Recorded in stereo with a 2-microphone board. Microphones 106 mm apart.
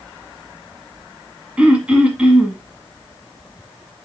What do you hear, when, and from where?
1.6 s throat clearing: 10° right (ahead or behind), 1.3 m